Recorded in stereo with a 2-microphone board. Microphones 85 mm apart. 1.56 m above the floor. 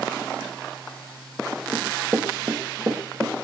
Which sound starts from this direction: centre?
Running footsteps, at 1.7 s.